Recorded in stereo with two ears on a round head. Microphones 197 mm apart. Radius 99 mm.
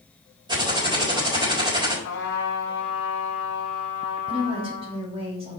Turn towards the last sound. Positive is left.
turn(degrees=-30)  # may be behind; listen again after turning